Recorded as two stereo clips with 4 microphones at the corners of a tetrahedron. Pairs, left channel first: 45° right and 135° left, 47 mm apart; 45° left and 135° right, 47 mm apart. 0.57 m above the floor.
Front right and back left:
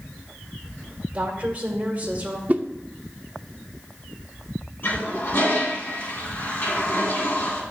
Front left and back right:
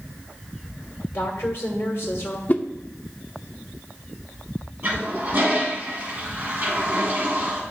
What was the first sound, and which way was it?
A woman speaking, 75° left.